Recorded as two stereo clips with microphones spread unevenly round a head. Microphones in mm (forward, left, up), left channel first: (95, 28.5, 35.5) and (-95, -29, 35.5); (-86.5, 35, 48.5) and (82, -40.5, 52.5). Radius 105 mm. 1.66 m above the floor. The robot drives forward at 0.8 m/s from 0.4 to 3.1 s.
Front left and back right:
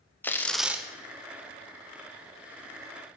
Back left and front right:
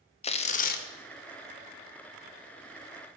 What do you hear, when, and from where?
0.2 s tearing paper: 100° left, 0.8 m; by 0.9 s 120° left, 0.9 m